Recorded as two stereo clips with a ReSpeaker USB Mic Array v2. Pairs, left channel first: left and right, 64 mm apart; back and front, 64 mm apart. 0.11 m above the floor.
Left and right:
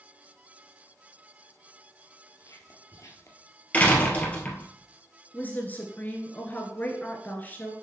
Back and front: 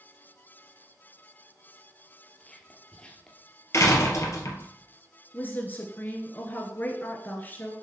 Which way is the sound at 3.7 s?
155° left.